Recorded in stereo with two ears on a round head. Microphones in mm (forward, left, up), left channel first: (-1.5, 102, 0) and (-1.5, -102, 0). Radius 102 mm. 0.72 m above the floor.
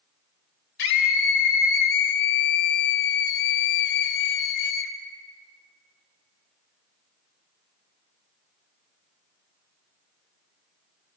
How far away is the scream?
About 3 m.